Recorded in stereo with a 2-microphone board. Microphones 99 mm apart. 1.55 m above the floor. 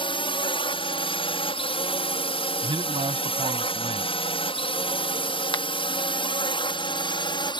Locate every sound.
0.0 s a drone: 60° left (ahead or behind); by 7.6 s 50° left (ahead or behind)
2.6 s a man speaking: 65° right (ahead or behind)
5.5 s a finger snap: 55° left (ahead or behind)